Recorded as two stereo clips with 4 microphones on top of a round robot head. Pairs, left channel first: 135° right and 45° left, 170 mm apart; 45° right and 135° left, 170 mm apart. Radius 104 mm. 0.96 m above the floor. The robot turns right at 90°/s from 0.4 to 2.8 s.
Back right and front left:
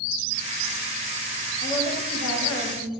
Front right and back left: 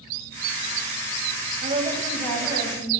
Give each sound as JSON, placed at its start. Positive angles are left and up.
{"t": 1.6, "sound": "a woman speaking", "azimuth_deg": 170, "distance_m": 5.5}